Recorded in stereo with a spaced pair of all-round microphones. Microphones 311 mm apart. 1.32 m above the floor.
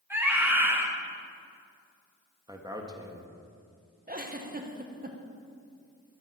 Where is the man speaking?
15° right (ahead or behind), 1.4 m.